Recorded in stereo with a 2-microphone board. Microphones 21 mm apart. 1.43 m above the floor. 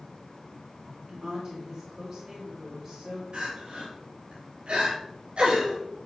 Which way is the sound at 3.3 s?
65° right (ahead or behind).